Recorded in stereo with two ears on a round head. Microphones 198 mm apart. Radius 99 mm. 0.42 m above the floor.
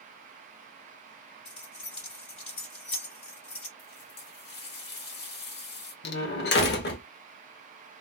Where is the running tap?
45° left (ahead or behind), 1.0 m.